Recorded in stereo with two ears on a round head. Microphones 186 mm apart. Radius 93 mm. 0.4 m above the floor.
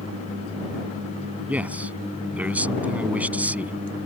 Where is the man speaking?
5° right (ahead or behind).